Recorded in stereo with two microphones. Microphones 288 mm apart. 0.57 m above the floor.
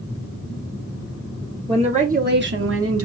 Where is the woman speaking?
15° right (ahead or behind), 0.9 m; by 3.0 s 50° right (ahead or behind), 0.9 m.